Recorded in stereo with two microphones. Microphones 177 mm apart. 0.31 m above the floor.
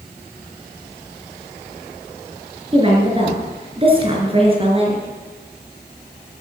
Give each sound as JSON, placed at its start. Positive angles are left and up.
{"t": 2.7, "sound": "a woman speaking", "side_deg": -30, "distance_m": 4.5}